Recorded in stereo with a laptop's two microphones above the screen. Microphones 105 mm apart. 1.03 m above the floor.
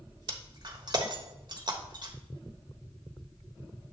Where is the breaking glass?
45° right (ahead or behind), 1.1 m.